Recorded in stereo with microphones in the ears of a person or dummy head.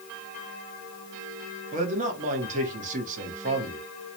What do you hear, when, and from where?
1.7 s a man speaking: 40° right (ahead or behind), 1.0 m